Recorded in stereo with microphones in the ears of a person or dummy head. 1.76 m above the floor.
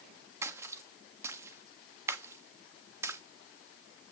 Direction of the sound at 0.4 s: 10° right (ahead or behind).